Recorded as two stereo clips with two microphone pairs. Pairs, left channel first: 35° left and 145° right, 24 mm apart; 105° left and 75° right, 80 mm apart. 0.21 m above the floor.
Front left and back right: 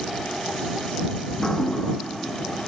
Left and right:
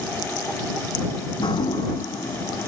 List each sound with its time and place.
1.3 s dripping: 100° left